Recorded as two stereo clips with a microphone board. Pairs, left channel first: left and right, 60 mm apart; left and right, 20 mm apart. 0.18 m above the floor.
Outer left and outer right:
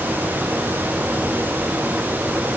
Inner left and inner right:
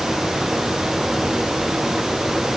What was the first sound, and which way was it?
Only background noise.